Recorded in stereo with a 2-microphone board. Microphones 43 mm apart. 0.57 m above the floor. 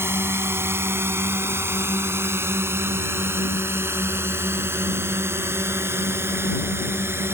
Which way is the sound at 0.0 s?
75° right (ahead or behind).